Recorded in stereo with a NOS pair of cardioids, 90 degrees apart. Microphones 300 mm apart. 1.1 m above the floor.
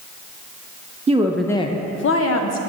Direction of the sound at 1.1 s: 25° right.